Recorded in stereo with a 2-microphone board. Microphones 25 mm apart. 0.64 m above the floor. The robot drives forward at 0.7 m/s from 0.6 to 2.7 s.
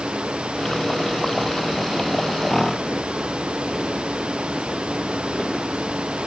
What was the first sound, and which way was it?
Only background noise.